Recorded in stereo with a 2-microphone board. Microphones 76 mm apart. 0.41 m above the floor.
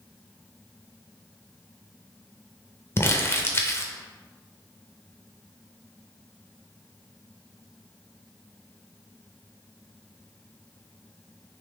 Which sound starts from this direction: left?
Crumpling, at 3.0 s.